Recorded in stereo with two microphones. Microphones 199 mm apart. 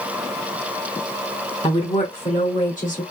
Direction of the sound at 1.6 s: 30° left (ahead or behind).